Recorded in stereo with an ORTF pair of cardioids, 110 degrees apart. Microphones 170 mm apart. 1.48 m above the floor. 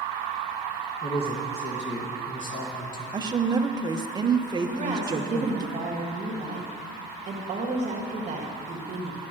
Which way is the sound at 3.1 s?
25° right.